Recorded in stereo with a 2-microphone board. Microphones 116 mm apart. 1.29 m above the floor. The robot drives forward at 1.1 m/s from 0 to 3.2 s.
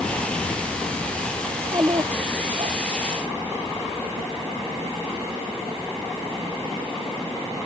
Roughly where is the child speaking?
Right.